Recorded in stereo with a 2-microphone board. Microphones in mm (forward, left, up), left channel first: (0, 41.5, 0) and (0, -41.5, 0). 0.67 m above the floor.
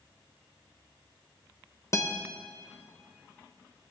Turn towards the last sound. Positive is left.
turn(degrees=35)  # may be behind; listen again after turning